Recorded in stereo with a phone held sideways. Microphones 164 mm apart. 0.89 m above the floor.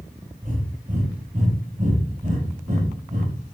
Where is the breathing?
50° right (ahead or behind), 5.5 m.